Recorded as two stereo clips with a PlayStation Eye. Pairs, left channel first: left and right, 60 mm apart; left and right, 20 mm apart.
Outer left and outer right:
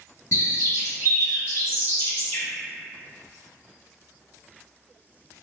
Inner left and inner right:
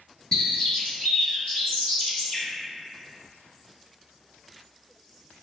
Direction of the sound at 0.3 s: 60° left (ahead or behind).